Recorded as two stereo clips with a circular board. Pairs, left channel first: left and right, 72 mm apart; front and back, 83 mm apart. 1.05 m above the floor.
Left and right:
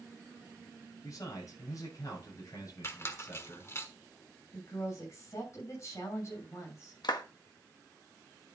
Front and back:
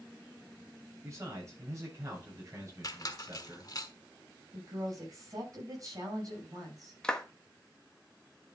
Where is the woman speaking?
135° left, 6.5 m.